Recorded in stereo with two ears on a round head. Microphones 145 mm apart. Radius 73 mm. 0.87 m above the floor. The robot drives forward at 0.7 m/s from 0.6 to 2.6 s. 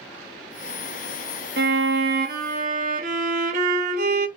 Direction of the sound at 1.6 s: 65° right (ahead or behind).